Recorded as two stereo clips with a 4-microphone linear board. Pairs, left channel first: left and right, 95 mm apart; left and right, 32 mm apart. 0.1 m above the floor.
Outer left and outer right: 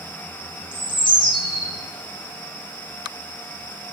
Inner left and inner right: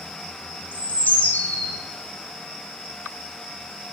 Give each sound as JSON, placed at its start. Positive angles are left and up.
{"t": 0.7, "sound": "a bird", "side_deg": 60, "distance_m": 2.5}